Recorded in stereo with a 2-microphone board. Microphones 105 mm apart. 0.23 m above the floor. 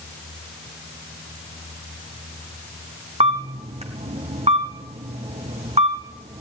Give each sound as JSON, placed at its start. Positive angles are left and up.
{"t": 3.2, "sound": "a camera shutter", "side_deg": -75, "distance_m": 2.5}